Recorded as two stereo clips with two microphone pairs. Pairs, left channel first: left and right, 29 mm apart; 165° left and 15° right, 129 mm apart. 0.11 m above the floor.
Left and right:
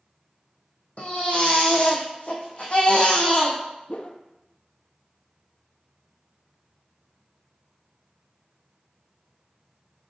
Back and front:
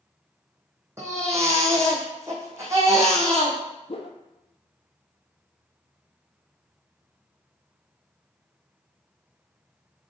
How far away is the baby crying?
About 2.5 m.